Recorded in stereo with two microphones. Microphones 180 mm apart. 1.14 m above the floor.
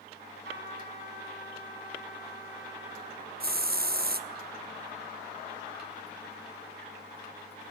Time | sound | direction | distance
0.5 | a trumpet | 85° right | 7.5 m
3.4 | a hiss | 60° right (ahead or behind) | 1.1 m